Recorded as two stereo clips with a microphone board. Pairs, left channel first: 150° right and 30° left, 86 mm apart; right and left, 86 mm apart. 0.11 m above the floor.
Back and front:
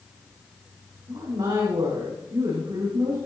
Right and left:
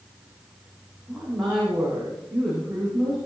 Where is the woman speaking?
10° left, 7 m.